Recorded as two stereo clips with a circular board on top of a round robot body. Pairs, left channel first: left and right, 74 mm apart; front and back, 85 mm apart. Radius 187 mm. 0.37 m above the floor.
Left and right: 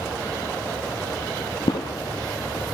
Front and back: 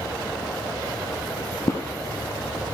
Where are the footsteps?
60° left, 0.5 m.